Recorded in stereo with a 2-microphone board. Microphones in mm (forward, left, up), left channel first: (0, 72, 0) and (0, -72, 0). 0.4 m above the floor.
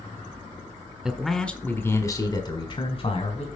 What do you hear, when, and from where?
1.1 s a man speaking: 5° right (ahead or behind), 1.4 m; by 3.5 s 50° left (ahead or behind), 2 m